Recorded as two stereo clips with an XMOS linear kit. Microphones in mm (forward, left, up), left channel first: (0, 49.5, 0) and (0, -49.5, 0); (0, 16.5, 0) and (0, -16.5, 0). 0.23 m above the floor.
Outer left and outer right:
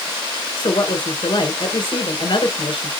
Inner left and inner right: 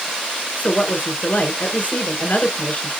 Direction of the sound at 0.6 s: 50° left (ahead or behind).